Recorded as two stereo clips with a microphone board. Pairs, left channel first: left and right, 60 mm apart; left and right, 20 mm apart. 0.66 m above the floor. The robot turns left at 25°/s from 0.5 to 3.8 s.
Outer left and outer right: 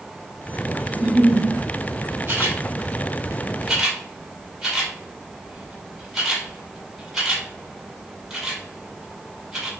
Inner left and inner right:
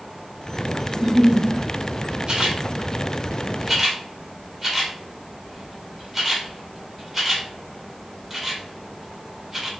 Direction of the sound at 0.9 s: 25° right (ahead or behind).